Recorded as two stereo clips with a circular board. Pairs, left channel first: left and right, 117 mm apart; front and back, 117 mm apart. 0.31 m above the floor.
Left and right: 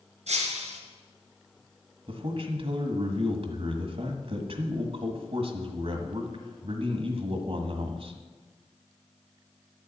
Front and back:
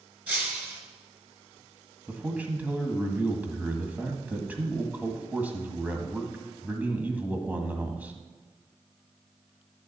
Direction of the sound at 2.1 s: 105° right.